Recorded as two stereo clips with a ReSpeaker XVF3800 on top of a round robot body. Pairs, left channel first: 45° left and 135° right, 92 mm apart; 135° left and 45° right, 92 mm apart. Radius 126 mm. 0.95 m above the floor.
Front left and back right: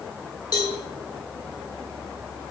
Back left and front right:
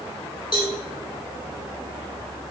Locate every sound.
0.5 s a cowbell: 95° left, 1.2 m